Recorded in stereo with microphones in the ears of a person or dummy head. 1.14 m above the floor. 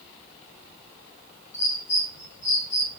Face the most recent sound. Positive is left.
turn(degrees=55)  # may be behind; listen again after turning